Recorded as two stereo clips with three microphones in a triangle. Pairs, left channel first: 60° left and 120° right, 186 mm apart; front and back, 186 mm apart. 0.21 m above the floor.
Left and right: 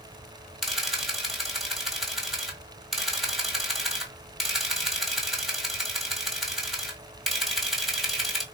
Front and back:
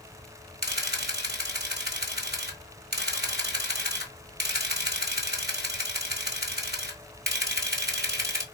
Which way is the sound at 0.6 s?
150° left.